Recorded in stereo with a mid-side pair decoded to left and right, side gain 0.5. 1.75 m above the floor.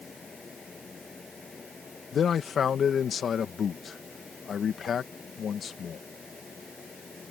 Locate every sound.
0.0 s a fan: 25° left
2.1 s a man speaking: 45° left